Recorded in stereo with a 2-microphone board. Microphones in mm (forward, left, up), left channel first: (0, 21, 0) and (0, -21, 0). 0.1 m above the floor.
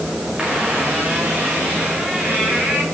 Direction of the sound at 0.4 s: 20° right (ahead or behind).